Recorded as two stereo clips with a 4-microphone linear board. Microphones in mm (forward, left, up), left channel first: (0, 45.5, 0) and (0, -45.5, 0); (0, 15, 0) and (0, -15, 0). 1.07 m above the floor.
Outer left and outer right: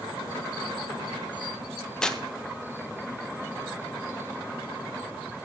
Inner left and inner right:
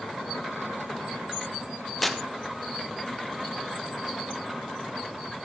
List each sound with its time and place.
2.0 s tearing paper: 5° left (ahead or behind), 0.8 m